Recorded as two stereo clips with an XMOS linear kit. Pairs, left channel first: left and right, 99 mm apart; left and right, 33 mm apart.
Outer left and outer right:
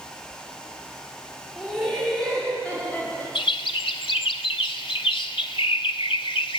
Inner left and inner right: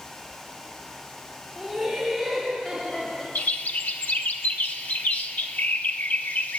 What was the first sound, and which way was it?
Laughter, 5° right (ahead or behind).